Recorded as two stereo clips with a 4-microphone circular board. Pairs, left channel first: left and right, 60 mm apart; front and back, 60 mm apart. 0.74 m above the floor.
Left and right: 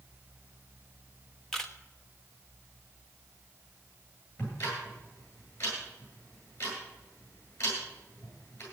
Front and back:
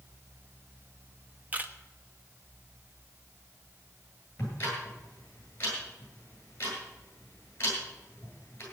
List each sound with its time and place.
1.5 s a camera shutter: 160° left, 1.1 m
4.4 s ticking: 55° left, 9.5 m